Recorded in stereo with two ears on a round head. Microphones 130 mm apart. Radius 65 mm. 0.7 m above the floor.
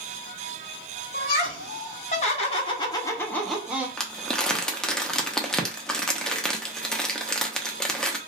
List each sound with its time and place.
1.1 s laughter: 65° left (ahead or behind), 1.5 m; by 3.9 s 15° right (ahead or behind), 0.7 m
4.0 s crumpling: 5° left (ahead or behind), 0.5 m